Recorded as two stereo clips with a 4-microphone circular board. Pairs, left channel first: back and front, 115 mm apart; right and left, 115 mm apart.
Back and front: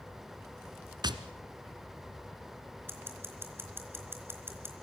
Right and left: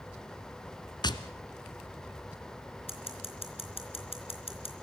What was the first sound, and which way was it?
Tapping, 45° right.